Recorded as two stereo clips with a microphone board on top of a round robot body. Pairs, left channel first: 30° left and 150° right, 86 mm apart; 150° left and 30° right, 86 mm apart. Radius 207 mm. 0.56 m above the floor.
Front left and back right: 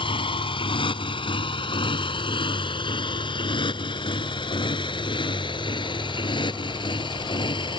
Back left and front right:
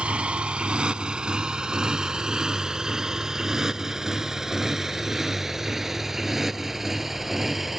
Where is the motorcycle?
50° left; by 7.8 s 60° left.